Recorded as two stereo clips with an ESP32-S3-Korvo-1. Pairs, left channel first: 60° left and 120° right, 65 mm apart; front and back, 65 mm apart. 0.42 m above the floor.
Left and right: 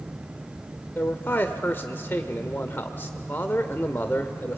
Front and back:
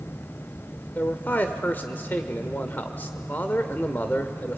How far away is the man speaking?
About 1.1 m.